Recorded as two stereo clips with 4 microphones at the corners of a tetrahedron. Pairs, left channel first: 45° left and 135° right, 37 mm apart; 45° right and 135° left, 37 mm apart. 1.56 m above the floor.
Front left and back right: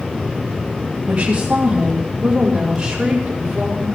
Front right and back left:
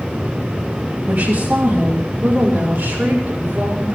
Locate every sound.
1.1 s a woman speaking: 160° left, 3.5 m; by 4.0 s 150° left, 5.5 m